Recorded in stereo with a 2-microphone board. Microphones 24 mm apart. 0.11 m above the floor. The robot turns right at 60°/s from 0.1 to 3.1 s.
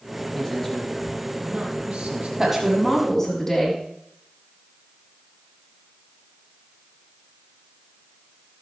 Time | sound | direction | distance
0.3 | a man speaking | 160° left | 4 m
2.4 | a woman speaking | 25° right | 5.5 m